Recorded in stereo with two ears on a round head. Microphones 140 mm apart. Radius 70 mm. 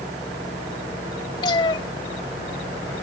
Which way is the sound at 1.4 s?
30° left (ahead or behind).